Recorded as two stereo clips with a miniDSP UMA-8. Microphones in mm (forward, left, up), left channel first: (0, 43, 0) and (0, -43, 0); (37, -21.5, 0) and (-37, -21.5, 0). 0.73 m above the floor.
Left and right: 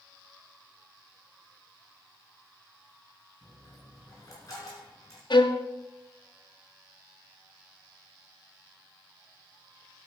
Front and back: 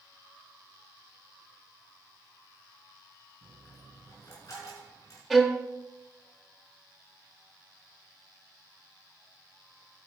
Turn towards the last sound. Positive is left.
turn(degrees=85)